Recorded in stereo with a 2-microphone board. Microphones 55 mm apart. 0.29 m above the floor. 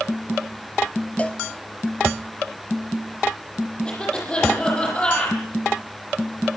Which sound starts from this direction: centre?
A cough, at 3.9 s.